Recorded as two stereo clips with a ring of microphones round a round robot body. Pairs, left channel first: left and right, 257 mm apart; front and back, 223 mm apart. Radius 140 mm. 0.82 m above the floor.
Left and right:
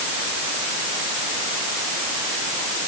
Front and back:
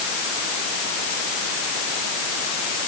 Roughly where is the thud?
No thud in this recording.